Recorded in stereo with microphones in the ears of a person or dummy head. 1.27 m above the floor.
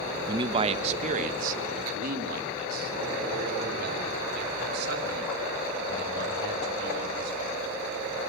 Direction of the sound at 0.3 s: 25° right (ahead or behind).